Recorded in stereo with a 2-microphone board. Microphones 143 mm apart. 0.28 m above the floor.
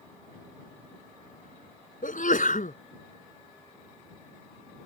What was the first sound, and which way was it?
A sneeze, 70° left (ahead or behind).